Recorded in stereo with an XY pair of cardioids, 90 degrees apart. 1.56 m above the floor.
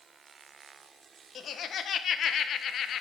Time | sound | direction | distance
1.4 | laughter | 65° left | 1.2 m